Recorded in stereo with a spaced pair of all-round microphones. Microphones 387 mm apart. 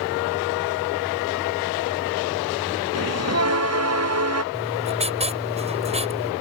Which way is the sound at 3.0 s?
40° right (ahead or behind).